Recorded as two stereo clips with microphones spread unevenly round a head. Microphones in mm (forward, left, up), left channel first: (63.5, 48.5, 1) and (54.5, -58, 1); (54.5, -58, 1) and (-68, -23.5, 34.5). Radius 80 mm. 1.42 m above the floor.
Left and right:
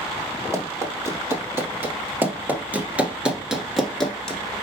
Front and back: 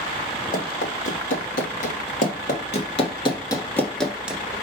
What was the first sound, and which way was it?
Running footsteps, 35° right.